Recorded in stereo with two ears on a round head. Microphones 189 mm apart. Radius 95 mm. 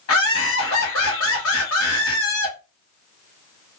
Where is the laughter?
70° left (ahead or behind), 0.9 m.